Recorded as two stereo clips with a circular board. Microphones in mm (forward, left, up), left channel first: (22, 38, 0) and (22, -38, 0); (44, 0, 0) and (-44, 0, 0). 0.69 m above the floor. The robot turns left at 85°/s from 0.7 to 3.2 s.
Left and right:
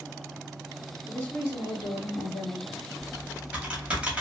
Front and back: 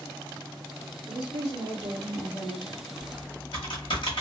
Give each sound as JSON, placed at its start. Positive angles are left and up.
{"t": 1.1, "sound": "a woman speaking", "azimuth_deg": 170, "distance_m": 1.6}
{"t": 3.0, "sound": "typing on a keyboard", "azimuth_deg": 5, "distance_m": 1.2}